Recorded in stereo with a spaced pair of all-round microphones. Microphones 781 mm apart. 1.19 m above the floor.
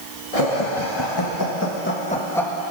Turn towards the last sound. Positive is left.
turn(degrees=0)  # may be behind; listen again after turning